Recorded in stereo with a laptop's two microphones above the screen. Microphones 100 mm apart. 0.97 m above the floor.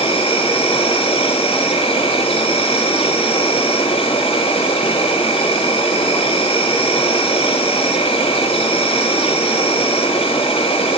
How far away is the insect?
About 4 m.